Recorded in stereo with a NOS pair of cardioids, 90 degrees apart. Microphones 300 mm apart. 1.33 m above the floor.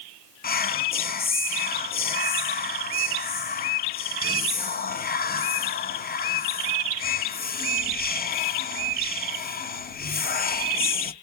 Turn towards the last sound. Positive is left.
turn(degrees=30)